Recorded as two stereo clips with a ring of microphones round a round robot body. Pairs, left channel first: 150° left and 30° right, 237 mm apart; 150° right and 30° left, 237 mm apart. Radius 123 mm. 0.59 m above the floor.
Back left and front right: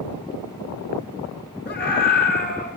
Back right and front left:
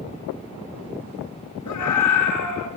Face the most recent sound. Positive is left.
turn(degrees=-155)